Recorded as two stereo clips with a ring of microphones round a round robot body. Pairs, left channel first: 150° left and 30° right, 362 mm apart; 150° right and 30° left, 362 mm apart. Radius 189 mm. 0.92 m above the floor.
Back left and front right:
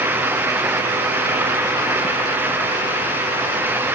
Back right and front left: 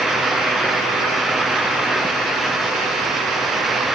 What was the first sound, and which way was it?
Only background noise.